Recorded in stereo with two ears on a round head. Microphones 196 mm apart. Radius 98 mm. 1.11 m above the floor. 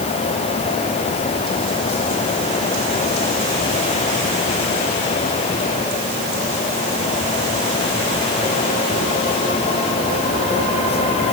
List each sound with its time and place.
Only background noise.